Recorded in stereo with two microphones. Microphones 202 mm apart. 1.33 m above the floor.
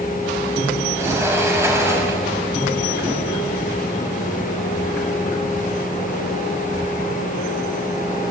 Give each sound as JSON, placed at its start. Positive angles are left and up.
{"t": 1.0, "sound": "a sliding door", "side_deg": -15, "distance_m": 5.5}